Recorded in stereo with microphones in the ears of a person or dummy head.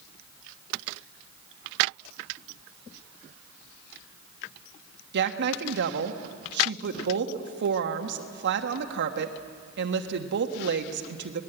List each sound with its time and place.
5.1 s a woman speaking: 60° right (ahead or behind), 1.3 m